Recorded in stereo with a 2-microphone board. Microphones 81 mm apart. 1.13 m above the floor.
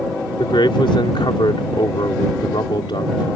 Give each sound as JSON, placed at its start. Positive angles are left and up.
{"t": 0.4, "sound": "a man speaking", "side_deg": 85}